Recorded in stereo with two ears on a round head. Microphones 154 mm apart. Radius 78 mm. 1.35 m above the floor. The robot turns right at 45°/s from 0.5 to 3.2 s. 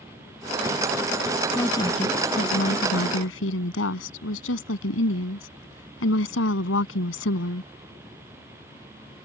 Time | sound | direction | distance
1.6 | a woman speaking | 10° left | ?